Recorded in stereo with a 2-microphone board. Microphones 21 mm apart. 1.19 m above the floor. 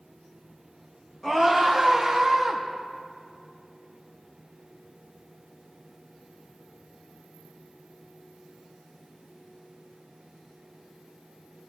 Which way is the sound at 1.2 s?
20° left (ahead or behind).